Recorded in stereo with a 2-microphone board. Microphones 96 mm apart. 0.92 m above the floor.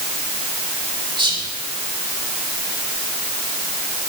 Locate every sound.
1.2 s whispering: 55° right (ahead or behind), 1.9 m